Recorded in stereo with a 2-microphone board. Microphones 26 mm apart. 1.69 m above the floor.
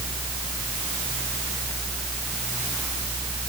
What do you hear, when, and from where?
Only background noise.